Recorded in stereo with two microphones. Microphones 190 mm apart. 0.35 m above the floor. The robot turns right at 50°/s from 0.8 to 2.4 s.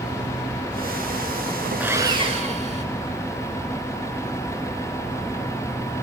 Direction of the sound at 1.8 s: 10° right (ahead or behind).